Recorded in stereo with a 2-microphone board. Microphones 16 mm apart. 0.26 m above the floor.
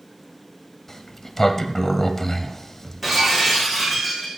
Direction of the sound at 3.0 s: 10° right (ahead or behind).